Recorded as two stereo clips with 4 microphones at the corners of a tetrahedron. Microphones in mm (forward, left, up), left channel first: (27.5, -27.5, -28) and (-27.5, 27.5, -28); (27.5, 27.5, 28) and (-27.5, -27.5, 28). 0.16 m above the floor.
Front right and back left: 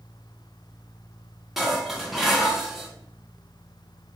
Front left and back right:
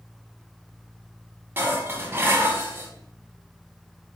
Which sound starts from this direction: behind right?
Dishes clattering, at 1.6 s.